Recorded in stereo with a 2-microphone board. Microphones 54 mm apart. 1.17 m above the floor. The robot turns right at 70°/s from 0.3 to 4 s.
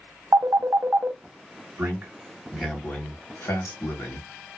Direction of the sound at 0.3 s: 75° right (ahead or behind).